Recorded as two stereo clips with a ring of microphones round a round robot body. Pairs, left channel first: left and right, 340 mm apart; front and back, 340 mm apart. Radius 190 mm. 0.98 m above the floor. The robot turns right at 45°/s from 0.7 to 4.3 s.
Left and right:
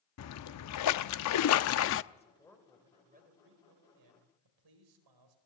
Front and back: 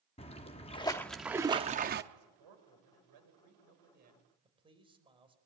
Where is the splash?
70° left, 0.5 m; by 2.0 s 130° left, 0.5 m.